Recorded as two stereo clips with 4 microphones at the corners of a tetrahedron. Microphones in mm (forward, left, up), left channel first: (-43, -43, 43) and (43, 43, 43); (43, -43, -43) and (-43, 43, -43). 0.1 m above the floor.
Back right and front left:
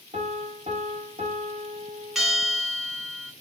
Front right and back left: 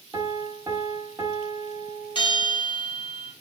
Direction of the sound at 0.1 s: 75° left.